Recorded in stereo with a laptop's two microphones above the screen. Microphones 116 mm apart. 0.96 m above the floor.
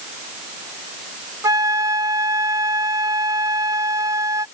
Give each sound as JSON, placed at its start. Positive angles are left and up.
{"t": 1.4, "sound": "a flute", "side_deg": -30}